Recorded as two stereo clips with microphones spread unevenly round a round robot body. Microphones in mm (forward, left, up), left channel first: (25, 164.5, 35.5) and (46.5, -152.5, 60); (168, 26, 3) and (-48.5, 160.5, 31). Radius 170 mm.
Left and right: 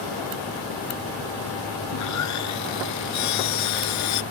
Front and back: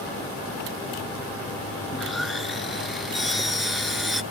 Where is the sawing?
60° left.